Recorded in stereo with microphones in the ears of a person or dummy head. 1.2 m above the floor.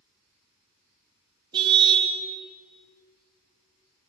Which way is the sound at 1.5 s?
25° right (ahead or behind).